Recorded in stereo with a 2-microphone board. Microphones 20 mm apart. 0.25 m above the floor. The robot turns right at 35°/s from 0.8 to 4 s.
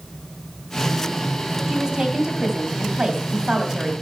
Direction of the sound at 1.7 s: 120° right.